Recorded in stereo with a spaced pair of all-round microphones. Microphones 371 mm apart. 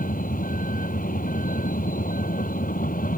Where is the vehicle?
20° left (ahead or behind).